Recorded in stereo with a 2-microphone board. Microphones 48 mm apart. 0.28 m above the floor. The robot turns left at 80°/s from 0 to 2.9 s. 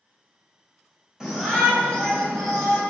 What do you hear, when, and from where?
1.2 s a shout: 10° right (ahead or behind), 1.3 m; by 2.8 s 20° left (ahead or behind), 1.3 m